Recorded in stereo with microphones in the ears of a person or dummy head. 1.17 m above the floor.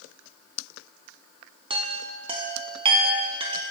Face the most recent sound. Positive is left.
turn(degrees=-30)  # may be behind; listen again after turning